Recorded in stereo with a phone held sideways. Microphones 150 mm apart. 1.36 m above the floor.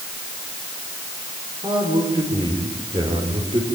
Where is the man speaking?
30° right (ahead or behind), 5.5 m.